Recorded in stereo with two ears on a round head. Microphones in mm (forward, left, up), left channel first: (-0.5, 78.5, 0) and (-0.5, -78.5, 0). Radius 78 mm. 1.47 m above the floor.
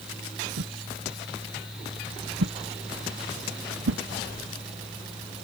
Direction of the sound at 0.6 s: 80° right.